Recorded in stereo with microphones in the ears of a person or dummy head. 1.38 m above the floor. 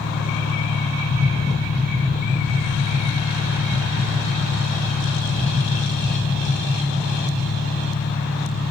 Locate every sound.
0.0 s an engine running: 60° left (ahead or behind), 1.3 m
1.1 s tapping: 15° right (ahead or behind), 2 m